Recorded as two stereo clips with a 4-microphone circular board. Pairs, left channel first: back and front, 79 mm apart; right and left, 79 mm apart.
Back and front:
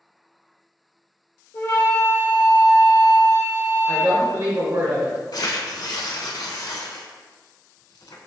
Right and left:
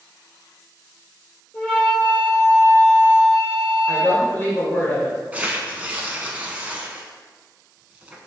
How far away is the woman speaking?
About 1.9 m.